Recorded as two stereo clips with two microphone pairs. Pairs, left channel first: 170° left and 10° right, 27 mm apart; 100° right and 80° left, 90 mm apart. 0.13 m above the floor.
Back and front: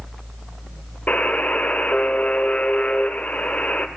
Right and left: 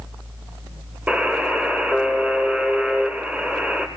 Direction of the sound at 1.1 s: 155° left.